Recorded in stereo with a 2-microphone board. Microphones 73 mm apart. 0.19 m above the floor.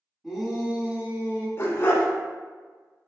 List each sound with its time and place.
0.2 s a shout: 5° right (ahead or behind), 1.4 m; by 1.5 s 35° right (ahead or behind), 1.7 m
1.6 s a dog barking: 40° left (ahead or behind), 0.7 m